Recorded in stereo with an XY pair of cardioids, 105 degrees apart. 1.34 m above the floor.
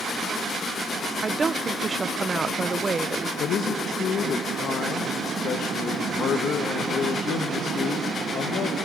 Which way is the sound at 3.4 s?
60° left.